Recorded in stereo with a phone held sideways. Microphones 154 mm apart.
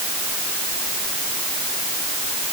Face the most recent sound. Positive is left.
No sound to turn to.